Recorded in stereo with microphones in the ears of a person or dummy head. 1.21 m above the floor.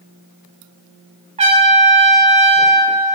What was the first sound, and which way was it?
A trumpet, 20° right (ahead or behind).